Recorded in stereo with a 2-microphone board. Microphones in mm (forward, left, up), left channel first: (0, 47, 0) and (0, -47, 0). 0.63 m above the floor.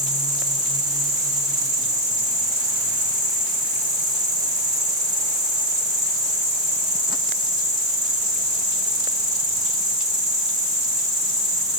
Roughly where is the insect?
Right.